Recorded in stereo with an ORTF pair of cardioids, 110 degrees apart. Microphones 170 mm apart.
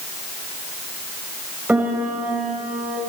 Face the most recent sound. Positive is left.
turn(degrees=-10)